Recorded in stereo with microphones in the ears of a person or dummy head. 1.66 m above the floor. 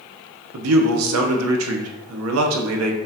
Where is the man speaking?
85° right, 0.8 m.